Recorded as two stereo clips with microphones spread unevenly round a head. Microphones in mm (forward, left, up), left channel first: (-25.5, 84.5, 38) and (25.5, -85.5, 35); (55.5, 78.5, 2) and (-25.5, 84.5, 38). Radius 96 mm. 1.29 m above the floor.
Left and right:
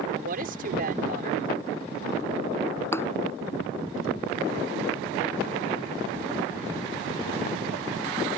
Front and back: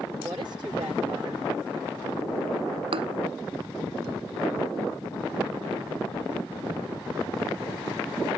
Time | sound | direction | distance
0.2 | a woman speaking | 115° right | ?
2.9 | a thud | 175° right | ?